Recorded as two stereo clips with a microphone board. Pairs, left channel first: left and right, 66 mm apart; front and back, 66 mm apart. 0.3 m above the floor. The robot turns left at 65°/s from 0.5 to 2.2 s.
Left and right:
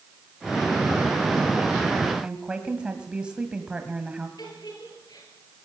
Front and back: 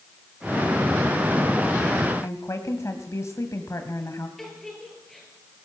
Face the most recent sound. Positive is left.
turn(degrees=85)